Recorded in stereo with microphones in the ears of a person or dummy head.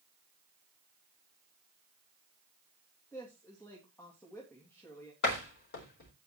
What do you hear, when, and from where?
3.1 s a woman speaking: 15° left (ahead or behind), 2.5 m
5.2 s a door slam: 55° left (ahead or behind), 4 m